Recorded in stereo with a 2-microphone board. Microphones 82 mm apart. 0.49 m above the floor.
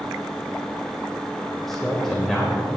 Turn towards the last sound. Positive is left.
turn(degrees=5)  # may be behind; listen again after turning